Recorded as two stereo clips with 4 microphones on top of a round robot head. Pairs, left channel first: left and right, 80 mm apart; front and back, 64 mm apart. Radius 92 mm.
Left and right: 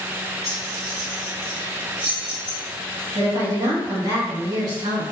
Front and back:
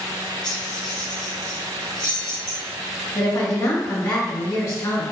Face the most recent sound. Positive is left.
turn(degrees=-45)